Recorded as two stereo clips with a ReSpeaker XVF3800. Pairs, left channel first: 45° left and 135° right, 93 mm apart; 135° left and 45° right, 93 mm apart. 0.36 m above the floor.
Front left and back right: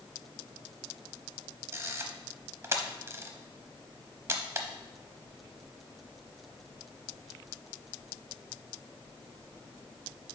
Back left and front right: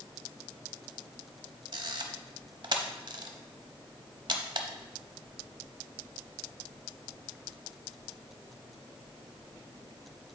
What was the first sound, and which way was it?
A camera shutter, 75° right.